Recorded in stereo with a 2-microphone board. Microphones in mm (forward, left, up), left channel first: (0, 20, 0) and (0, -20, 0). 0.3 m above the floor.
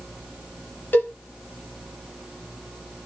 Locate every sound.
0.9 s a cowbell: 50° left (ahead or behind), 1.0 m